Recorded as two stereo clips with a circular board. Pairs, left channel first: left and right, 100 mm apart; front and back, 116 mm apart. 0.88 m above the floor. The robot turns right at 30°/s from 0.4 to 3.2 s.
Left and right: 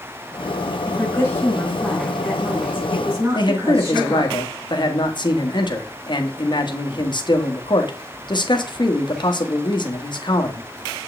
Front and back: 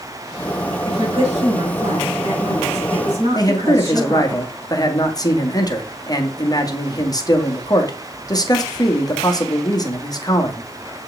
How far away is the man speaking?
About 1.3 m.